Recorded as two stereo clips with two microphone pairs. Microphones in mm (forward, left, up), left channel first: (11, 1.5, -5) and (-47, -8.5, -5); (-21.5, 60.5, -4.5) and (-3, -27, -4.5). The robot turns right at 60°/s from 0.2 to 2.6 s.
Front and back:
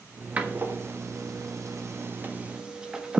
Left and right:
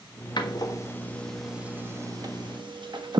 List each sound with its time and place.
0.4 s a door slam: 130° left, 1.3 m; by 3.2 s 95° right, 1.3 m